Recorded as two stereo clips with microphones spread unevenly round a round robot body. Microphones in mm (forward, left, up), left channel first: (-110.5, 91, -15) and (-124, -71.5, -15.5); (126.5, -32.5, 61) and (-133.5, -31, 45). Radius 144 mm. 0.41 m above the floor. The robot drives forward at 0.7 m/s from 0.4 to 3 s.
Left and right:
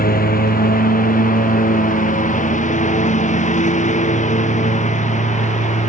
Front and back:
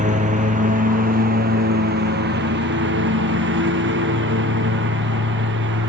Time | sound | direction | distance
0.0 | a lawn mower | 115° left | ?